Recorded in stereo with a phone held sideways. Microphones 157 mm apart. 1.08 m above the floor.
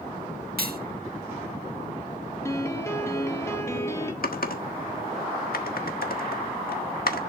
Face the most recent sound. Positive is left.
turn(degrees=75)  # may be behind; listen again after turning